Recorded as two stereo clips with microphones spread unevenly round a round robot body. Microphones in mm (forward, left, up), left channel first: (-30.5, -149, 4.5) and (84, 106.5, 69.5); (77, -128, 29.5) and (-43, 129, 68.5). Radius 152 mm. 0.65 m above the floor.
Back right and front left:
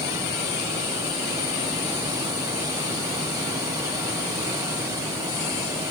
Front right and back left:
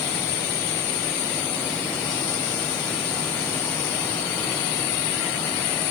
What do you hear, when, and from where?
Only background noise.